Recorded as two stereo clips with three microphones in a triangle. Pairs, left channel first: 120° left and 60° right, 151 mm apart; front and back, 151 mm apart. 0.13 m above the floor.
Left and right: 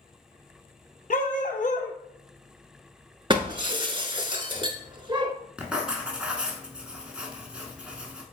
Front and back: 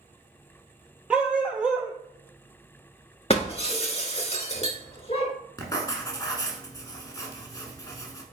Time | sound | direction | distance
1.1 | a dog barking | 100° left | 0.9 m
3.3 | breaking glass | 20° right | 0.7 m
5.6 | writing | 15° left | 1.0 m